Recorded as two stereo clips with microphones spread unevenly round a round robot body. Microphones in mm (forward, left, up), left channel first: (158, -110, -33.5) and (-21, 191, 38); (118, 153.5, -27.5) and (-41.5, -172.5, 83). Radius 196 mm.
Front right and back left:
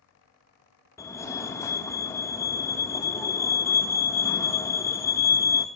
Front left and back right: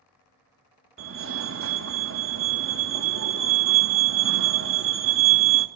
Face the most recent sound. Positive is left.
turn(degrees=-80)